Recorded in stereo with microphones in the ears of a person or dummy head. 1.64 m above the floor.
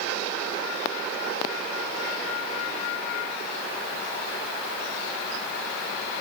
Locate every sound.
Only background noise.